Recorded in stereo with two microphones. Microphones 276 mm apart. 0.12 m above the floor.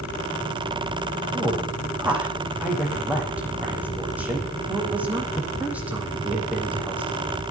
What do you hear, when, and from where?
1.3 s a woman speaking: 5° right (ahead or behind), 5.5 m